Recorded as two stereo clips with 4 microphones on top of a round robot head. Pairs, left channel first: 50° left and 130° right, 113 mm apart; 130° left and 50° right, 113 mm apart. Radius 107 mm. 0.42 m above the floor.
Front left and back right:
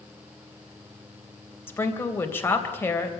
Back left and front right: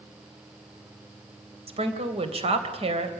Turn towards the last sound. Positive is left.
turn(degrees=-20)